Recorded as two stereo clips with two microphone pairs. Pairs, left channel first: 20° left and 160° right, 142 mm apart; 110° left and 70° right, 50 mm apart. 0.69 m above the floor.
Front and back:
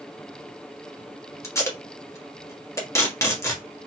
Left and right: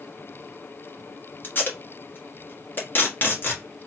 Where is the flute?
No flute in this recording.